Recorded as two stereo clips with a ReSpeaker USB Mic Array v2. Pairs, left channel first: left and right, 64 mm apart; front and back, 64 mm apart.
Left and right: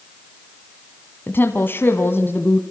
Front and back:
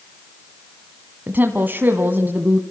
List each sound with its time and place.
1.3 s a woman speaking: 130° left, 1.8 m